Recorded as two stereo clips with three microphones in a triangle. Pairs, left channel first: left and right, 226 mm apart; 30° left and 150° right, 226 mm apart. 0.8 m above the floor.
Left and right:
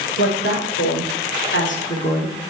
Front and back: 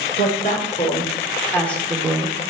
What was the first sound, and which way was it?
A woman speaking, 75° left.